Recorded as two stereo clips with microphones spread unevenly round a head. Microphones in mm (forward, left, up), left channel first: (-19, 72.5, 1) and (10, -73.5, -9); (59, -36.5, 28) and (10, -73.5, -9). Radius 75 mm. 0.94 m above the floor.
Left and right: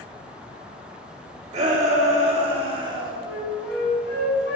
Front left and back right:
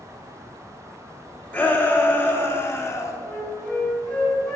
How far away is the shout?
About 3 m.